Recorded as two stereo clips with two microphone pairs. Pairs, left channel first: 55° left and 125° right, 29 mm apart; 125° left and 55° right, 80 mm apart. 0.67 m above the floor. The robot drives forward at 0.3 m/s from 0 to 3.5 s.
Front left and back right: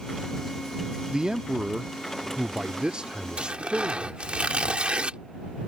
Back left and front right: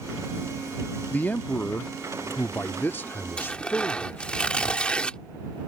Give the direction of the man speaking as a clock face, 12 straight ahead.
6 o'clock.